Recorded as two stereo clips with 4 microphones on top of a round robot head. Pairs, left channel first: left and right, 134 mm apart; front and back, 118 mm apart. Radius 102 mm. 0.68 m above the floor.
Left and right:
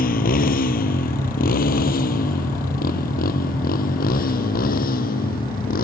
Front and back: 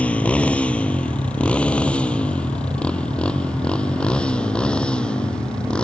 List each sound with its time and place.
0.0 s a motorcycle: 80° left; by 5.8 s 85° left